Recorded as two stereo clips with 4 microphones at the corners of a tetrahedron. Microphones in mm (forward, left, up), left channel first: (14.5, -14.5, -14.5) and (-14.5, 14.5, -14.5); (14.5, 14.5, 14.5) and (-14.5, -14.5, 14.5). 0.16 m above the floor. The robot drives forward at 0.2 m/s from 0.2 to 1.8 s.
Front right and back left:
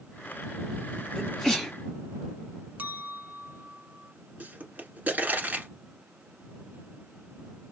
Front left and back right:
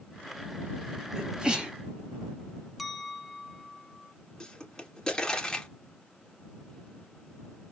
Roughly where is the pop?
Left.